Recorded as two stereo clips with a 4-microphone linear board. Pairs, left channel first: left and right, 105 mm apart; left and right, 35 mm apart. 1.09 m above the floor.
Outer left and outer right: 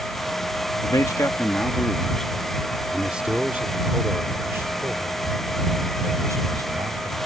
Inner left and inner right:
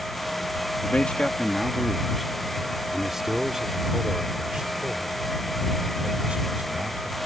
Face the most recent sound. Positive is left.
turn(degrees=-35)  # may be behind; listen again after turning